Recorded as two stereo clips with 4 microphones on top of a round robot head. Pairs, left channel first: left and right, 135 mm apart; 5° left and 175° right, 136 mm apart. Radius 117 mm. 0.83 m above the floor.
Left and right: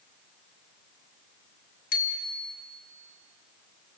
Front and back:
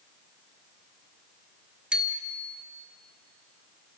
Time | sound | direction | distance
1.9 | a bicycle bell | 100° left | 2.5 m